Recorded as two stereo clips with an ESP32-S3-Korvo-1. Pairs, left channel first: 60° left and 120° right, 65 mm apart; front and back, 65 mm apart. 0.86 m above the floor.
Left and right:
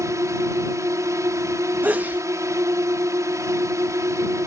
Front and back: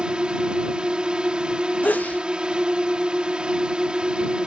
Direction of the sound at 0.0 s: 110° right.